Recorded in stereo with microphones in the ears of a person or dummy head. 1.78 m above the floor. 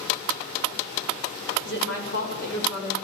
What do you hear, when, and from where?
1.6 s a woman speaking: 75° left (ahead or behind), 8.5 m